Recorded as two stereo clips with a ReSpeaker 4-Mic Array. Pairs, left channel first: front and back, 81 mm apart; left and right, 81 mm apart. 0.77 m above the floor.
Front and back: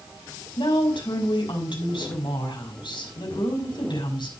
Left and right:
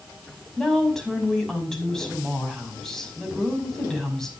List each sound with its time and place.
0.6 s a woman speaking: 5° left, 5 m